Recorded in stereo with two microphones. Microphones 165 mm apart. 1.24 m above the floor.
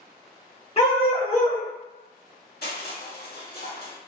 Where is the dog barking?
40° left (ahead or behind), 1.2 m.